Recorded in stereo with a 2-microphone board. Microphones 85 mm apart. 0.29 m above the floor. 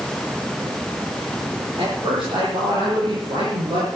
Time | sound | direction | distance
1.8 | a man speaking | 75° right (ahead or behind) | 7.5 m